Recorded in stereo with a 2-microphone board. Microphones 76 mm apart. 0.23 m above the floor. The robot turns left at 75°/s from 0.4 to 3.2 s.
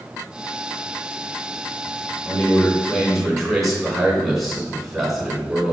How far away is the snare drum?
I don't hear a snare drum.